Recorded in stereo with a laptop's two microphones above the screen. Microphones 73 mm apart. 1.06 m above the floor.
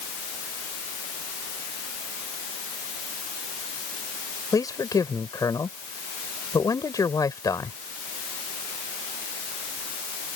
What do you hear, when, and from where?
4.5 s a man speaking: 50° left (ahead or behind)